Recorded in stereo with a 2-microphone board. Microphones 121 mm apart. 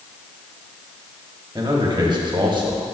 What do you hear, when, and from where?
1.6 s a man speaking: 40° right (ahead or behind), 1.3 m